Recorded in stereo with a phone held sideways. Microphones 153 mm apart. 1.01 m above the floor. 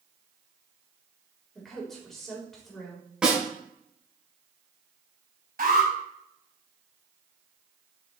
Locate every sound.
1.6 s a woman speaking: centre (ahead or behind), 3.5 m
3.2 s a snare drum: 5° right (ahead or behind), 4 m
5.6 s an alarm: 75° right (ahead or behind), 4.5 m